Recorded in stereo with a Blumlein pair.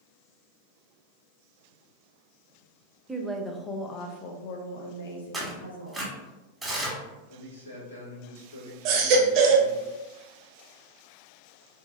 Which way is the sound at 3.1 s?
15° right.